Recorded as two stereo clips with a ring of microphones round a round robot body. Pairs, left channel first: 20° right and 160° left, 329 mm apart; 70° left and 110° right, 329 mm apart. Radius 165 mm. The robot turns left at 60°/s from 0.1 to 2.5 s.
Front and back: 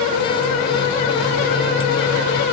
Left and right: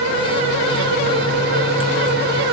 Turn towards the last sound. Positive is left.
No sound to turn to.